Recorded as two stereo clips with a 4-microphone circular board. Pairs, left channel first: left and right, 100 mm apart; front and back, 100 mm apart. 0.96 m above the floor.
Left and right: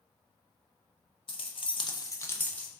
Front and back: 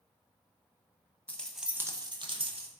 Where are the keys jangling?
75° left, 0.6 m; by 2.7 s 170° left, 0.7 m.